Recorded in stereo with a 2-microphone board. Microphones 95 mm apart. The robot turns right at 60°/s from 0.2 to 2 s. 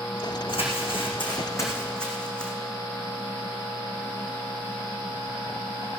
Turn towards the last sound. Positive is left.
turn(degrees=10)  # may be behind; listen again after turning